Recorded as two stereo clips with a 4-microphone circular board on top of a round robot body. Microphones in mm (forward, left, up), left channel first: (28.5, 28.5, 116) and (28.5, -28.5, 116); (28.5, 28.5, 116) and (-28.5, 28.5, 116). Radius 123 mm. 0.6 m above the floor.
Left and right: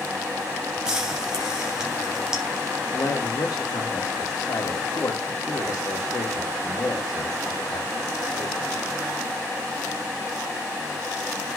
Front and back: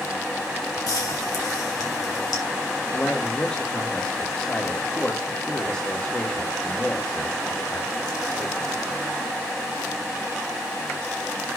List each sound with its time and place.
0.9 s frying: 10° right, 3.5 m
2.9 s a man speaking: 65° left, 1.8 m